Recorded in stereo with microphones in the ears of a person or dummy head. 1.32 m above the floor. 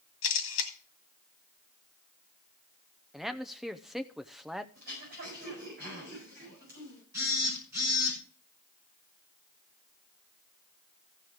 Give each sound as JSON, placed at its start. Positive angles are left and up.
{"t": 0.2, "sound": "a camera shutter", "side_deg": 70, "distance_m": 2.0}
{"t": 3.1, "sound": "a man speaking", "side_deg": -5, "distance_m": 0.6}
{"t": 4.8, "sound": "throat clearing", "side_deg": -50, "distance_m": 7.0}
{"t": 7.1, "sound": "a phone buzzing", "side_deg": -15, "distance_m": 5.0}